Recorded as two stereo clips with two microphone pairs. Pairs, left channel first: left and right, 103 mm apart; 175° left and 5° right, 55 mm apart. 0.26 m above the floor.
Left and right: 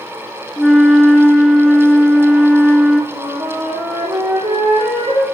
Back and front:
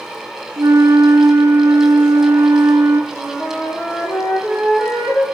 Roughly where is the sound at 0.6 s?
Ahead.